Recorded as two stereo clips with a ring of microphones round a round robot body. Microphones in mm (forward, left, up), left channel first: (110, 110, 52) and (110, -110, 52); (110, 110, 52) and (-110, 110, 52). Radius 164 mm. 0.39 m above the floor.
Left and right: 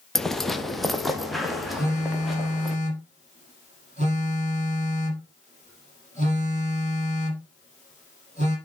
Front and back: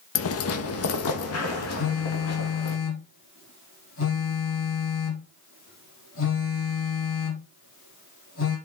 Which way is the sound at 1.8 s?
30° right.